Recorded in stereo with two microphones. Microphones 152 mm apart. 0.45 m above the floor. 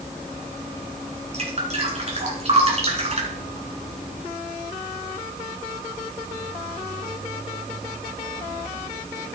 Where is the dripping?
45° right (ahead or behind), 3 m.